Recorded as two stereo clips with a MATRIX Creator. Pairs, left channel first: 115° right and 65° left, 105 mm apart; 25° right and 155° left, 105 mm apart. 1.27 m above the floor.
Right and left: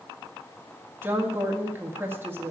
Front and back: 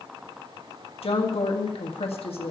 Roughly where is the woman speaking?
Ahead.